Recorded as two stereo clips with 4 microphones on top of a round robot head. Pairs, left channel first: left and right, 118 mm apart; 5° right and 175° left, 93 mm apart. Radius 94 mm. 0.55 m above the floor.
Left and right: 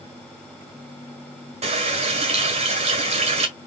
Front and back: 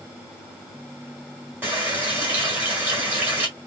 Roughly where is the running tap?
Behind right.